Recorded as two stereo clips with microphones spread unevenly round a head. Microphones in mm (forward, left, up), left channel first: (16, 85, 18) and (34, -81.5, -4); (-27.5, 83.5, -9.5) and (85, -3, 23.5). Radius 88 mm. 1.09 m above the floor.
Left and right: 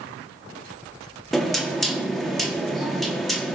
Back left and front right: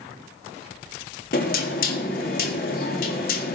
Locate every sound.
1.3 s knocking: 175° right, 1.4 m